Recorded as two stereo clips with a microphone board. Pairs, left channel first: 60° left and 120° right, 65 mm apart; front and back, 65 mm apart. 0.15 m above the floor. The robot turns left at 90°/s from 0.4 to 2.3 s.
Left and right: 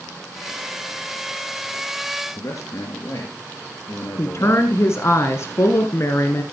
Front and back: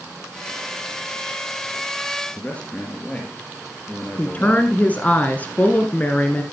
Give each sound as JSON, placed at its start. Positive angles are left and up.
{"t": 2.3, "sound": "a man speaking", "azimuth_deg": 65, "distance_m": 2.5}
{"t": 4.2, "sound": "a woman speaking", "azimuth_deg": 55, "distance_m": 1.7}